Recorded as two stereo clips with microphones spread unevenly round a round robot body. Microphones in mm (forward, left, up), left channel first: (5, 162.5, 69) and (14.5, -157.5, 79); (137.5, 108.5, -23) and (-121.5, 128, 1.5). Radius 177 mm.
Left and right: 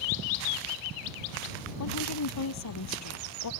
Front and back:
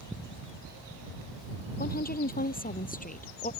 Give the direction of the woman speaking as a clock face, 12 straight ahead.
10 o'clock.